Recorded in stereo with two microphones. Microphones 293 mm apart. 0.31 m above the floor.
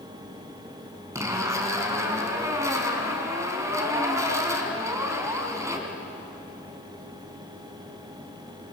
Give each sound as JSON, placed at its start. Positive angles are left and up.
{"t": 1.1, "sound": "a zipper", "side_deg": -10, "distance_m": 3.0}